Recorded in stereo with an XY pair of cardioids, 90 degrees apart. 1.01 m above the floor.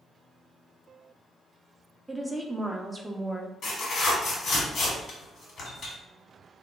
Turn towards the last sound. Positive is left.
turn(degrees=70)